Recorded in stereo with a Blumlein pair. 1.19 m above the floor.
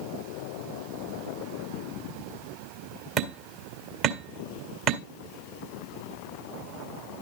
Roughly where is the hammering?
Ahead right.